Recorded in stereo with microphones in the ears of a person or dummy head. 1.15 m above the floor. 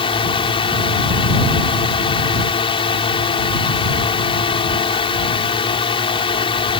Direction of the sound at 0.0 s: 25° left (ahead or behind).